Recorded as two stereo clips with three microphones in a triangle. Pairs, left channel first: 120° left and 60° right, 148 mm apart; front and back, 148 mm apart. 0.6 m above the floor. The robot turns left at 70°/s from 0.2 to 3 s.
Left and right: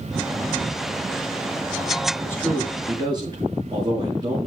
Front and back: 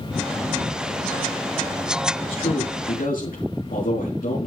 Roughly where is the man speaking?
Ahead left.